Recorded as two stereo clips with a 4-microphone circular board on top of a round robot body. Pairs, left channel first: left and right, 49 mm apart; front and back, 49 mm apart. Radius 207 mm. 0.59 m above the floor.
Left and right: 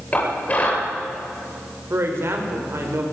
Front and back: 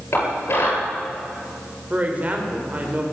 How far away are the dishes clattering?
About 9 m.